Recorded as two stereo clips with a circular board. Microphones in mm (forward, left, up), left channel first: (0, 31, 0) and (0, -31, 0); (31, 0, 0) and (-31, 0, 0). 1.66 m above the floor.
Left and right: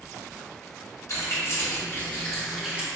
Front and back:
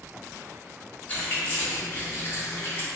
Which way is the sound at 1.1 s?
55° left.